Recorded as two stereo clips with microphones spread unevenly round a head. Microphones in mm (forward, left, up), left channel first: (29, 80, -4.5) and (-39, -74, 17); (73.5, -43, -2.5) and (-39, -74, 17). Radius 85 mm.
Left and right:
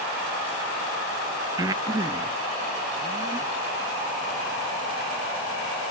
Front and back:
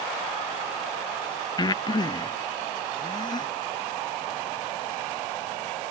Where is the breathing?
40° right.